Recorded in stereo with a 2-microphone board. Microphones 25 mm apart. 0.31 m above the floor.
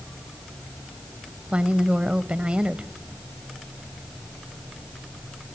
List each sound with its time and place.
1.5 s a woman speaking: 45° right (ahead or behind), 1.2 m